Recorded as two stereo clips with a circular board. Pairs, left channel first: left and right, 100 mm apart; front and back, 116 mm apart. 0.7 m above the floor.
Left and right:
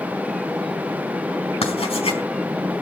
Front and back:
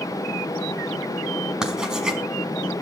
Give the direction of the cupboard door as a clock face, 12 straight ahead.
No cupboard door in this recording.